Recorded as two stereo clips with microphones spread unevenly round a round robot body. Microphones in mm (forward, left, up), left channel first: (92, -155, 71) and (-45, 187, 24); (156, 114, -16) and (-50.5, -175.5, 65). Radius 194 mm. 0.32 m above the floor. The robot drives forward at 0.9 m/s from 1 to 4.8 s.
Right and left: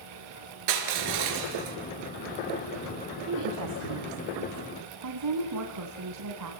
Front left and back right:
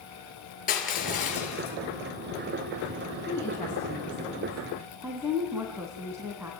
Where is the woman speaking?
125° left, 2.5 m; by 6.5 s 145° left, 3.5 m.